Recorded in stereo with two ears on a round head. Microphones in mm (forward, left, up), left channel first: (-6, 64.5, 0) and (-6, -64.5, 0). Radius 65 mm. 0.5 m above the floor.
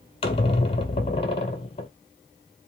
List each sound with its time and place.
0.2 s a squeak: 40° left (ahead or behind), 0.6 m